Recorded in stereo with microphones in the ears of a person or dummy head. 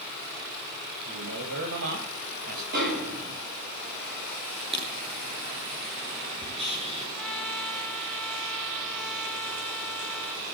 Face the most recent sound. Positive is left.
turn(degrees=0)  # may be behind; listen again after turning